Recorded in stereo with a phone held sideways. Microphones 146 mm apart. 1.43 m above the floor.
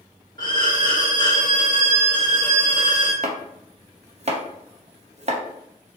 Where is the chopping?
50° right (ahead or behind), 0.8 m.